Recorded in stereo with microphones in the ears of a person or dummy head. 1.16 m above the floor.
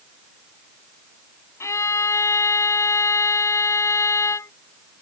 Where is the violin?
10° left (ahead or behind).